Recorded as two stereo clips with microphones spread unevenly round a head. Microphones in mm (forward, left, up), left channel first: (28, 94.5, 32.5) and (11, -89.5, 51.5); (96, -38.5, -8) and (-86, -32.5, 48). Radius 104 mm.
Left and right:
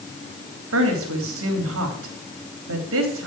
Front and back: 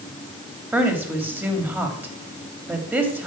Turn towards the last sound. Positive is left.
turn(degrees=-100)